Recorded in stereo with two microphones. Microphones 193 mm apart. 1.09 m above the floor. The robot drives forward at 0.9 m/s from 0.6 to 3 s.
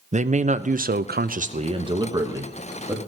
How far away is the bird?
I don't hear a bird.